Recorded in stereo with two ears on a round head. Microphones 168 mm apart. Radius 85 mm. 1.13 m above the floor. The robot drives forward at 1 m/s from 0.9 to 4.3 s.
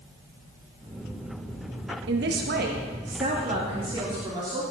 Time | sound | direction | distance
2.1 | a man speaking | 70° right (ahead or behind) | 1.3 m